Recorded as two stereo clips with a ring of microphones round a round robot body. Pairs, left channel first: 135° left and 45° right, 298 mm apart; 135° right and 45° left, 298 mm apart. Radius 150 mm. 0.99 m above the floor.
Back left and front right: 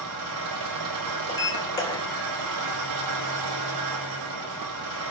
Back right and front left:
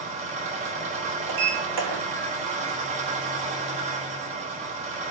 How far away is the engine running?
About 5 m.